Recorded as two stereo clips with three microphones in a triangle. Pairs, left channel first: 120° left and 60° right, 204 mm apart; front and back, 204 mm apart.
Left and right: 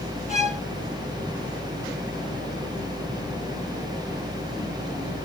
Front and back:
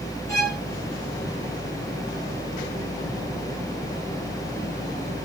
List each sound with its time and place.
0.3 s a violin: 70° left, 2.5 m